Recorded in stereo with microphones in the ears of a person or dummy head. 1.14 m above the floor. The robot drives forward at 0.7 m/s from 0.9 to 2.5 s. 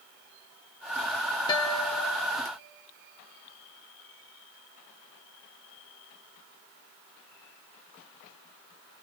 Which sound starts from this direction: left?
A guitar, at 1.5 s.